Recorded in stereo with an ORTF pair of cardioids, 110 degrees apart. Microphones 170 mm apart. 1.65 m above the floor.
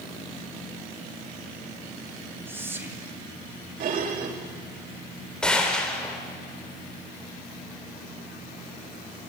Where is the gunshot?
5° left, 3.5 m.